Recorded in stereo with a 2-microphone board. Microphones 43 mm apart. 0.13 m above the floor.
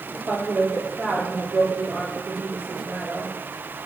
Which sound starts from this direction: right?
A woman speaking, at 0.3 s.